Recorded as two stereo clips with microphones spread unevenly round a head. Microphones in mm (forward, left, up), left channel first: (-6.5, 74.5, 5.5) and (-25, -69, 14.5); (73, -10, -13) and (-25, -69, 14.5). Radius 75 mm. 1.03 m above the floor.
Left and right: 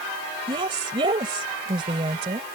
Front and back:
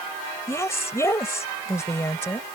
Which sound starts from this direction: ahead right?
A woman speaking, at 0.5 s.